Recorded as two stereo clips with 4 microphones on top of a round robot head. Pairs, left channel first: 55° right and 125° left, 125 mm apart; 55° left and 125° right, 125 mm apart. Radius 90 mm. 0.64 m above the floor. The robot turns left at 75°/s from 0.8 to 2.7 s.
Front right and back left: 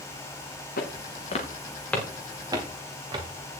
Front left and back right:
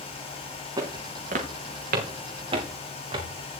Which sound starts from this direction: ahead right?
Footsteps, at 0.8 s.